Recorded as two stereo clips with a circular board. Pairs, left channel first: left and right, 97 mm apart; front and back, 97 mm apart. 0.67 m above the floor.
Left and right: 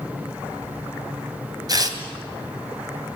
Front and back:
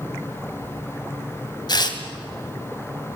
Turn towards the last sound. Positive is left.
turn(degrees=-40)